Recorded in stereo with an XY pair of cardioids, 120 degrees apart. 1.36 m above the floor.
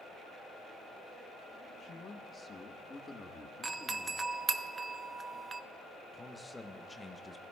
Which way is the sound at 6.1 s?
10° left.